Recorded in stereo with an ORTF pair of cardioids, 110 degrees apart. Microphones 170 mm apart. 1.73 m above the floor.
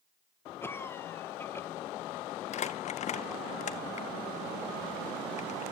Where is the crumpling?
40° left, 2 m.